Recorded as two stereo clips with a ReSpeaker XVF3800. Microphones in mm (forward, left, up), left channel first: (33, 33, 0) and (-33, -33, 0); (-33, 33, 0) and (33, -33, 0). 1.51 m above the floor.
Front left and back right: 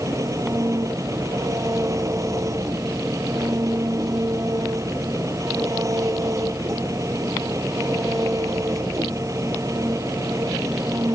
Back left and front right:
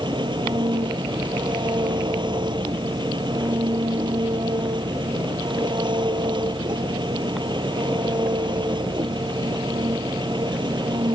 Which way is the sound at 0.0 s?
80° right.